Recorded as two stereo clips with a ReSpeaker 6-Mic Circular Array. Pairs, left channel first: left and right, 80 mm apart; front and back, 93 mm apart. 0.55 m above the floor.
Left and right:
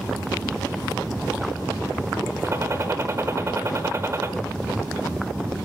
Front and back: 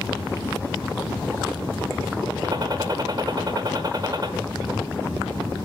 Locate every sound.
2.4 s a gunshot: 140° right, 1.1 m